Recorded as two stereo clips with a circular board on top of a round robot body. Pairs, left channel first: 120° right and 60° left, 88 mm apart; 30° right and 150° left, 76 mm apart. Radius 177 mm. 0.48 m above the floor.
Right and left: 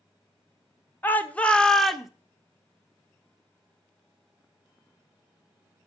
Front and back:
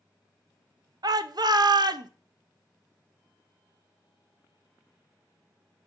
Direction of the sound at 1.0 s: 175° left.